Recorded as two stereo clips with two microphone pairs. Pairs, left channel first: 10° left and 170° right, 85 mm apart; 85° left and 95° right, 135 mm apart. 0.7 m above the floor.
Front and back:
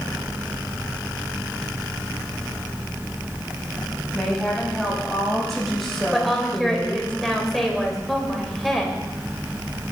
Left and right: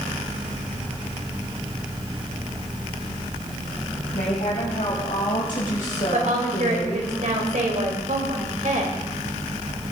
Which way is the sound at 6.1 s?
80° right.